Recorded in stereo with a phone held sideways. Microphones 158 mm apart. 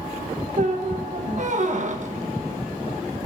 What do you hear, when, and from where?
0.6 s a squeak: 50° right (ahead or behind), 1.2 m